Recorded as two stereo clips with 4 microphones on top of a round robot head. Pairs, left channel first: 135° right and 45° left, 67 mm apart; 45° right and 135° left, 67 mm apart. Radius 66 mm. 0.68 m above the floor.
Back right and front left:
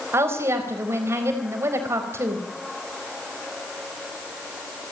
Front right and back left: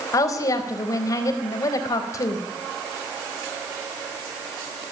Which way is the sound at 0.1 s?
10° right.